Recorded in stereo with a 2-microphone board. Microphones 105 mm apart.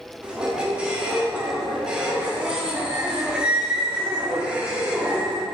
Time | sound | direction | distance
0.2 | a squeak | 10° right (ahead or behind) | 1.6 m